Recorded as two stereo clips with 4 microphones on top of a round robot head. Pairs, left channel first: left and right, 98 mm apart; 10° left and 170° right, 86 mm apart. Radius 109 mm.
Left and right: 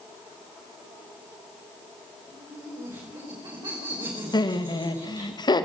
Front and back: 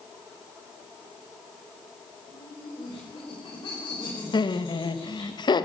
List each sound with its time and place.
2.3 s laughter: 45° right, 6 m
4.3 s laughter: 45° left, 1.9 m